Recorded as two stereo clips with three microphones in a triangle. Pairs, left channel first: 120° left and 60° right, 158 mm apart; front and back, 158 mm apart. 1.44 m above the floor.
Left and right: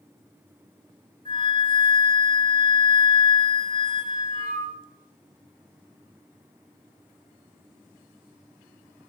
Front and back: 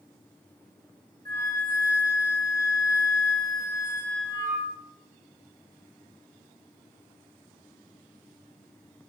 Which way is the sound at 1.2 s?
60° left.